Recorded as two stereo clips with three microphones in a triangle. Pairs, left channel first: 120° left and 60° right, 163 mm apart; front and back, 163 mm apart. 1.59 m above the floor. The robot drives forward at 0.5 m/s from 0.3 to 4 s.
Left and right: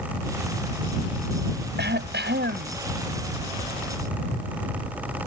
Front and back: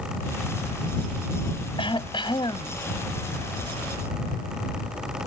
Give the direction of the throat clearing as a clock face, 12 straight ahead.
2 o'clock.